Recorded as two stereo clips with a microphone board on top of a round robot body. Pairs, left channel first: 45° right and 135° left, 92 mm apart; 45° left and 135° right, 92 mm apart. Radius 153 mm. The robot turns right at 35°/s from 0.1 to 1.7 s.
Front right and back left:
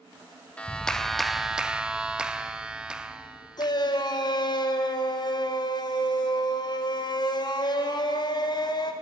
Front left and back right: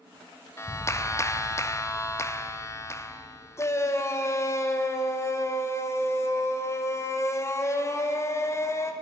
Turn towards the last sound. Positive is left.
turn(degrees=-10)